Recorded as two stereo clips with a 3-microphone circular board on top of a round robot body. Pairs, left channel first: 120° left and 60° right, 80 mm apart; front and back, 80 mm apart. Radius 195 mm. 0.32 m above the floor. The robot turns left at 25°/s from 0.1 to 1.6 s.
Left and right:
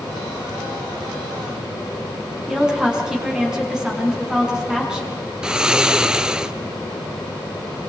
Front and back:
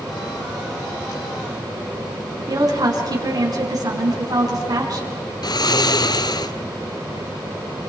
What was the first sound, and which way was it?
A woman speaking, 140° right.